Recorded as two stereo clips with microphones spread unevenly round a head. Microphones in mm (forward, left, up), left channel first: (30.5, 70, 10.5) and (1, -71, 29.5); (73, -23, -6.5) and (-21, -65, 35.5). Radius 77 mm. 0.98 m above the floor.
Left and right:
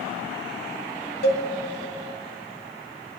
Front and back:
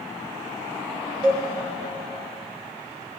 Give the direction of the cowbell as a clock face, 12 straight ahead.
8 o'clock.